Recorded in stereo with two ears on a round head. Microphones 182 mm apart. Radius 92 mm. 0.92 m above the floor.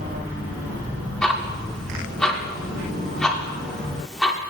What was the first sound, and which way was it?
Ticking, 5° left (ahead or behind).